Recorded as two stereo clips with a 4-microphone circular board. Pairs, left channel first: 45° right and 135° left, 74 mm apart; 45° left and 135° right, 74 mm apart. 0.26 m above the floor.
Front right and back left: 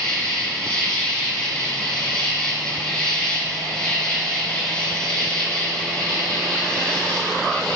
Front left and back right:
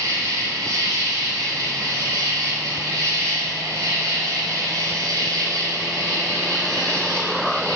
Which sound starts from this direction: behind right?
An insect, at 0.0 s.